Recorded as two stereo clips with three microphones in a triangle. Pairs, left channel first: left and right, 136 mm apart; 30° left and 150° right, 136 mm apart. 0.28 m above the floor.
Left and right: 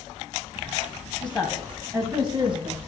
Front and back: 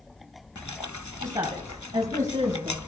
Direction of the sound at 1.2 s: 165° left.